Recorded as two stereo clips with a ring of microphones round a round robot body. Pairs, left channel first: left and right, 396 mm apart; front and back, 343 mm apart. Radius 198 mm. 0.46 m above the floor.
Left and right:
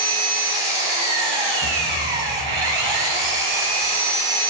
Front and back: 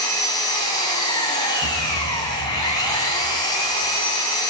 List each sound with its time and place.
0.0 s an engine running: 80° right, 3 m
1.6 s a thud: 125° right, 6.5 m